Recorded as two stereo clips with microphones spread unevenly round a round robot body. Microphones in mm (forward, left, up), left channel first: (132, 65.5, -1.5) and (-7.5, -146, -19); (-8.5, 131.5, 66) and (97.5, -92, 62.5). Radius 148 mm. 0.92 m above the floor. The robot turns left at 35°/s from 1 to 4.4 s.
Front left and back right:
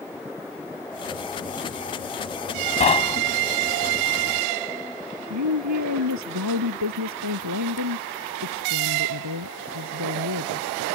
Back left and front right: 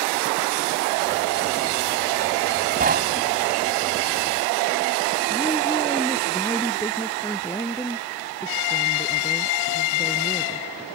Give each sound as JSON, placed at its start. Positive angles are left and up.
{"t": 2.8, "sound": "knocking", "azimuth_deg": -5}
{"t": 5.3, "sound": "a woman speaking", "azimuth_deg": -165}